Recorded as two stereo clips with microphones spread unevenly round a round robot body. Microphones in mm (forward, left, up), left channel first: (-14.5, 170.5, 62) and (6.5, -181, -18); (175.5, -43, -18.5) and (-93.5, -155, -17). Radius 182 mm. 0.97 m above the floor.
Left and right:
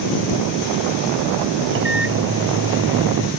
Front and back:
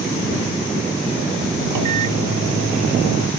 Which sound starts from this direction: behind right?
A microwave, at 1.7 s.